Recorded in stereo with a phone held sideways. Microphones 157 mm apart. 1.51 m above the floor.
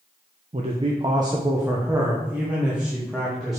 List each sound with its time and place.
0.5 s a man speaking: 45° right (ahead or behind), 0.9 m; by 3.6 s centre (ahead or behind), 2.5 m